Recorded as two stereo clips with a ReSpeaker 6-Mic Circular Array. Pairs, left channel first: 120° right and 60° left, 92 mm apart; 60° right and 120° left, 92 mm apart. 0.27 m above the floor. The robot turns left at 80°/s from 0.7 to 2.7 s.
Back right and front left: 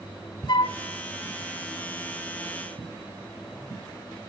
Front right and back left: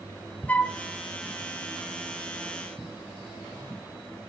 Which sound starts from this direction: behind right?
A flute, at 0.5 s.